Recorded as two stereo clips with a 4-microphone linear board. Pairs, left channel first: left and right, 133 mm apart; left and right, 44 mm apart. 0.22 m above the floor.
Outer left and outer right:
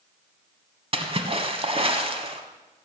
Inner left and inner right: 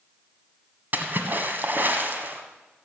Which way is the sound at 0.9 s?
45° right (ahead or behind).